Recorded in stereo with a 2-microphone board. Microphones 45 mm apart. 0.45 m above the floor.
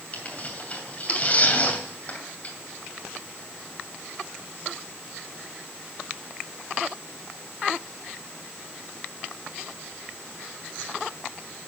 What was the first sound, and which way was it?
Tearing paper, 35° left (ahead or behind).